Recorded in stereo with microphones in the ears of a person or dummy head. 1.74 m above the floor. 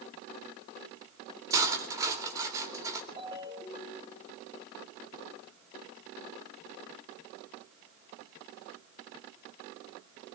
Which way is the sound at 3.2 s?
25° right (ahead or behind).